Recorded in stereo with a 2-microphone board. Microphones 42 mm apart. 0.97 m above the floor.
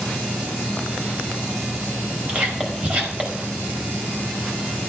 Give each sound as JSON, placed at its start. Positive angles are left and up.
{"t": 2.3, "sound": "whispering", "side_deg": -40, "distance_m": 5.0}